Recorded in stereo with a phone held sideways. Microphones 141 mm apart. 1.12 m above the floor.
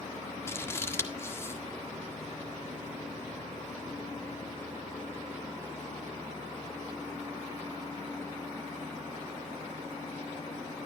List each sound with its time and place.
0.5 s scissors: 20° left (ahead or behind), 1.6 m